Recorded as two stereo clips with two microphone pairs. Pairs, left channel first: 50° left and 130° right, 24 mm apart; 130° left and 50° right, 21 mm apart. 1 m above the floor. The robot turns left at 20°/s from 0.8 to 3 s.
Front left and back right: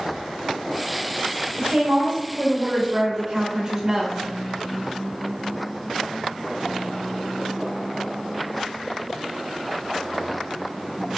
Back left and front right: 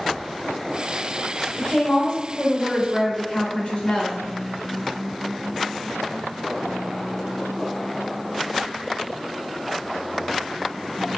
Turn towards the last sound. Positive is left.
turn(degrees=165)